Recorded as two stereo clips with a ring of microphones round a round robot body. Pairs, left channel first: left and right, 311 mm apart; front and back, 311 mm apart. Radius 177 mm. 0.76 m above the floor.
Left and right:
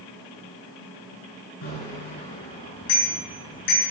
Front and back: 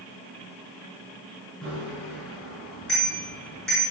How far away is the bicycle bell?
About 7.5 m.